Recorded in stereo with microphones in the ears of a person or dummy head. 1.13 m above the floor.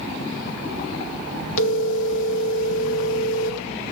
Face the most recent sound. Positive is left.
turn(degrees=75)  # may be behind; listen again after turning